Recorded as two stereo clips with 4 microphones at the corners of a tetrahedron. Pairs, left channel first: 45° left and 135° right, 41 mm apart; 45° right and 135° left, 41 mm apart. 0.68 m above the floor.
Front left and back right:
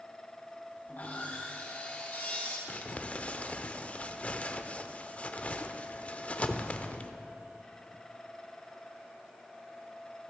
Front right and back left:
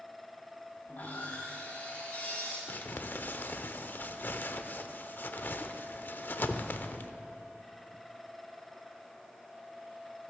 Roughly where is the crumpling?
Ahead.